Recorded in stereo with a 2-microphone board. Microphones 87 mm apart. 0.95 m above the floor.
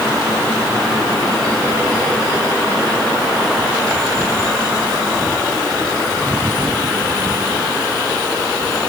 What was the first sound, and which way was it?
Only background noise.